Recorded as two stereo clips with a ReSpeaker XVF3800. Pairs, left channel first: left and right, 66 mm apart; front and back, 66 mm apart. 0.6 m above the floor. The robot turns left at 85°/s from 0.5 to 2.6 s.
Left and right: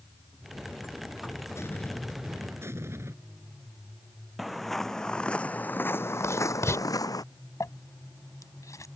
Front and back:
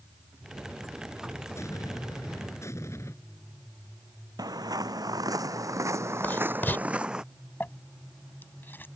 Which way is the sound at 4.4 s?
175° right.